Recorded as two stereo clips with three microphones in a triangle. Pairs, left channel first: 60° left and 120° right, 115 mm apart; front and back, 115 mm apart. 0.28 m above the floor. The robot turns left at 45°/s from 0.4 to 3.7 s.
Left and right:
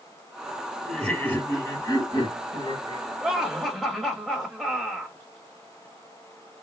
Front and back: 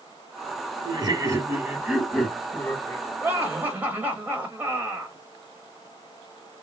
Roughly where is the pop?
I don't hear a pop.